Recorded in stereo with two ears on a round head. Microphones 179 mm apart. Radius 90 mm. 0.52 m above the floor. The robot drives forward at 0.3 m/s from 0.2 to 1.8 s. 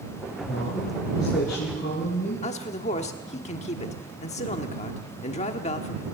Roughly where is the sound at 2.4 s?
Left.